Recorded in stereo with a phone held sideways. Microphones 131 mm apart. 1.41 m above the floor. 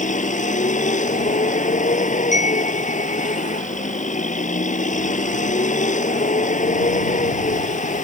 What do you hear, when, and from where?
0.0 s a vehicle: 70° left (ahead or behind)
2.3 s a chime: 65° left (ahead or behind)